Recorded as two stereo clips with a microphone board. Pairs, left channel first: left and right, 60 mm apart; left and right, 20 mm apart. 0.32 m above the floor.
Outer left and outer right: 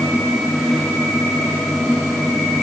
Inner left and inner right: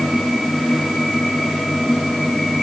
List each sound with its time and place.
Only background noise.